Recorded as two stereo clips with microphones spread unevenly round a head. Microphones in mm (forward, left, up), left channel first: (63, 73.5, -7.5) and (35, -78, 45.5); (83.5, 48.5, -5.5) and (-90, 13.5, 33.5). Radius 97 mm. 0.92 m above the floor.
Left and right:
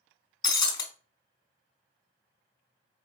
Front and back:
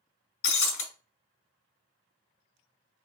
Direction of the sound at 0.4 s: 5° left.